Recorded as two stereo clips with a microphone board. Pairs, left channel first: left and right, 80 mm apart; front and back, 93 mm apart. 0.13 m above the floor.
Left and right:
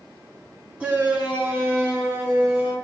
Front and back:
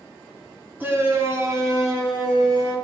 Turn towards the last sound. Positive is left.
turn(degrees=-145)